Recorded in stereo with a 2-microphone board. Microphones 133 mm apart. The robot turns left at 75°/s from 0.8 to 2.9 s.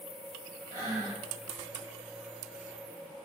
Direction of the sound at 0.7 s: 150° left.